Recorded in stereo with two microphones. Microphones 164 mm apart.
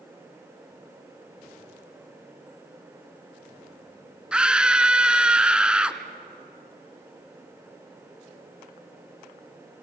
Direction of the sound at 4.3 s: 5° right (ahead or behind).